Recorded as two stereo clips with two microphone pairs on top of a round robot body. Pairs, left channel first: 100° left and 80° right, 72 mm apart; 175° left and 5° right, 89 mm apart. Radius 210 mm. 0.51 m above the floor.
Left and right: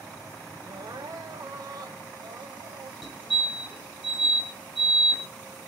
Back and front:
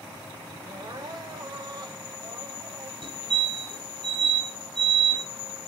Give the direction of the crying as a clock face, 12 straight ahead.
2 o'clock.